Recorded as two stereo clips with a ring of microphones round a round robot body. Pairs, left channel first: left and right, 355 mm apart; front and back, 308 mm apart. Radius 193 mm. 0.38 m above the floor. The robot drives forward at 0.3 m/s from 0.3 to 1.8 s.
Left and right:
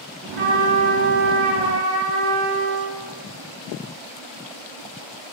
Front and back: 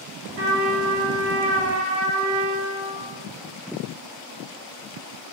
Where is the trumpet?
155° right, 1.7 m; by 3.0 s 160° right, 2 m.